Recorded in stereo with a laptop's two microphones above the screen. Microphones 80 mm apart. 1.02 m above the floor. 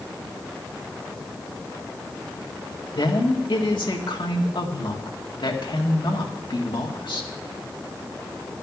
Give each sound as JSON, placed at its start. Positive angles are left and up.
{"t": 2.9, "sound": "a woman speaking", "side_deg": 85, "distance_m": 1.8}